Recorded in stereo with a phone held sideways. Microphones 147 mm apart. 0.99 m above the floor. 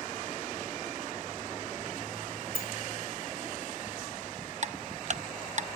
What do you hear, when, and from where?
2.5 s a sliding door: 65° left (ahead or behind), 2.5 m
4.6 s ticking: 55° right (ahead or behind), 0.6 m